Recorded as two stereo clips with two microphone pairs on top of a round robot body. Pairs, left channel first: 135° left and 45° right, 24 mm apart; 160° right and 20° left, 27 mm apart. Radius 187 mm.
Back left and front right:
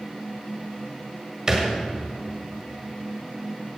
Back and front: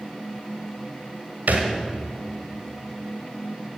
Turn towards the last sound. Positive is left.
turn(degrees=30)